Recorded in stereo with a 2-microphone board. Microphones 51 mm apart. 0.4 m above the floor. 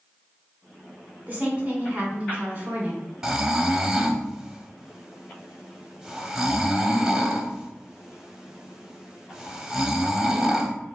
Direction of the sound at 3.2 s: 10° right (ahead or behind).